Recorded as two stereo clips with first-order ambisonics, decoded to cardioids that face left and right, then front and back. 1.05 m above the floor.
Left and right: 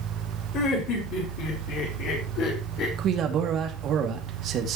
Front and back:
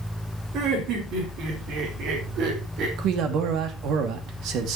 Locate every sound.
0.5 s laughter: 135° left, 4.5 m; by 2.9 s 130° left, 3 m
3.0 s a man speaking: 145° right, 2 m